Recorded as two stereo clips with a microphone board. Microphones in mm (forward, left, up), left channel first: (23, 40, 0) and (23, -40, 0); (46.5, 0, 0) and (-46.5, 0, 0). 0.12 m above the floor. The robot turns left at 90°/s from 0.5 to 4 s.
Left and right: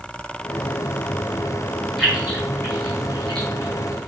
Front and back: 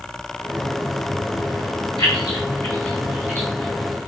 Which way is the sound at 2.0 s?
Straight ahead.